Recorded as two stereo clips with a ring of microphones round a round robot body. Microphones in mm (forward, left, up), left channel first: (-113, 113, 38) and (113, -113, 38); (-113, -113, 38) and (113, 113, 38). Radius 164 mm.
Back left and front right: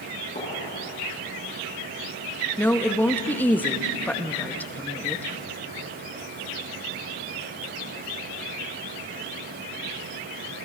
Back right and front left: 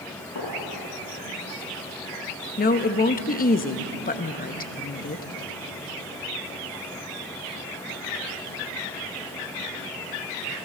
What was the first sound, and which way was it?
A gunshot, 155° right.